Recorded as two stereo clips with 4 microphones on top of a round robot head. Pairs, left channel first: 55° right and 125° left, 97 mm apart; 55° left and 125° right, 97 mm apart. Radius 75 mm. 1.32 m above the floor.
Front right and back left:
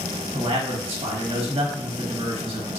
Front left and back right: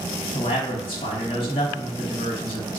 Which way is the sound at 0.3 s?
90° left.